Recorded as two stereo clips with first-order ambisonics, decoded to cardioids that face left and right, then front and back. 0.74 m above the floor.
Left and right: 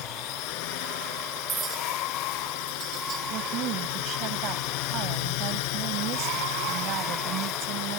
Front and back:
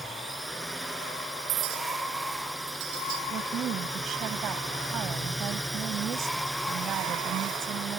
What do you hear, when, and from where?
0.0 s a drone: 90° left
1.5 s a clink: 155° right
3.3 s a woman speaking: 130° right